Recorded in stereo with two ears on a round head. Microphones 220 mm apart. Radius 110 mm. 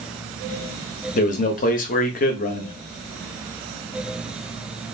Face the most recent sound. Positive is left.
turn(degrees=35)  # may be behind; listen again after turning